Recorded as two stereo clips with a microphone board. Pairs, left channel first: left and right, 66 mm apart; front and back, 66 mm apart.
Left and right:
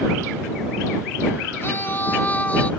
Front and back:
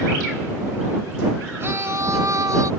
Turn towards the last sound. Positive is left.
turn(degrees=160)